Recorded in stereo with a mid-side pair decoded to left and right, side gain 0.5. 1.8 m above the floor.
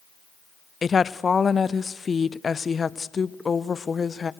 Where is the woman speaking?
30° left, 0.6 m.